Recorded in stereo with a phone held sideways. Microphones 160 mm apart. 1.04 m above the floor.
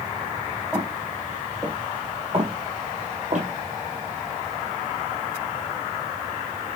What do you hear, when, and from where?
0.7 s footsteps: 5° right (ahead or behind), 1.8 m; by 3.5 s 60° right (ahead or behind), 1.9 m